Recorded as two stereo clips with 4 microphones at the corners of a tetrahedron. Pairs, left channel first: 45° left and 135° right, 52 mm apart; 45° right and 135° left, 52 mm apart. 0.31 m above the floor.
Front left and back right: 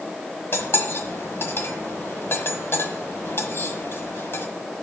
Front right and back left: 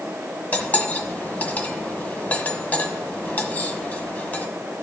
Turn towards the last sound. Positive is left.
turn(degrees=10)